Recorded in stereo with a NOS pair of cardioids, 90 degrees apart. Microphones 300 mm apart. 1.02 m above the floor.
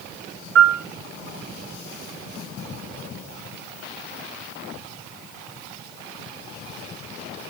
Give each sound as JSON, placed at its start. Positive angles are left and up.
{"t": 0.6, "sound": "a piano", "azimuth_deg": -45, "distance_m": 0.6}